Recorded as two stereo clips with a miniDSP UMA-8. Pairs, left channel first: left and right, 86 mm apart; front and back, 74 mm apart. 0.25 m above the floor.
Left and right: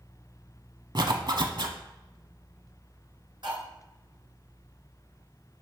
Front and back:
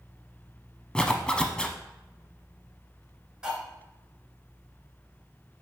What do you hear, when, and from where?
0.9 s a zipper: 75° right, 0.7 m
3.4 s cutlery clinking: 100° right, 1.8 m